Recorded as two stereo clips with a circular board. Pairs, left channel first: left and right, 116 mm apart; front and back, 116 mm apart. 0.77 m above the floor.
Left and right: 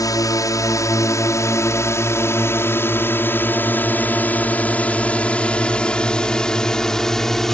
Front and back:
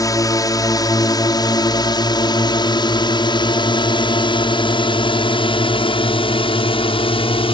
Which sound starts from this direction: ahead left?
A drone, at 0.0 s.